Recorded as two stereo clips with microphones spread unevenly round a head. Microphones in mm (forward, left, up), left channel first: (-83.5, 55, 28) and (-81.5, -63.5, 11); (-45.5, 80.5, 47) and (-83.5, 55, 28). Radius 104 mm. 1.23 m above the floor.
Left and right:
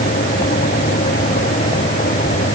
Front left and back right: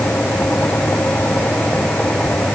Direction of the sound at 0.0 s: 90° left.